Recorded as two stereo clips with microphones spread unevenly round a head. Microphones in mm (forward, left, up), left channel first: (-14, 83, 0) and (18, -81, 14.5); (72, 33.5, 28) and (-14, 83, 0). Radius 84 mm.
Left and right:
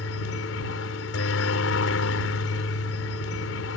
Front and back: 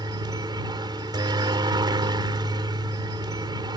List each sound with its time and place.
0.0 s a helicopter: 105° left